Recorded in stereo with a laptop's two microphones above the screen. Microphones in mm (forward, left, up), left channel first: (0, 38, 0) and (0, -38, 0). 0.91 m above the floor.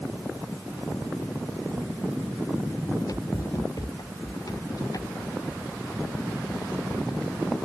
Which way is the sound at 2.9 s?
50° left (ahead or behind).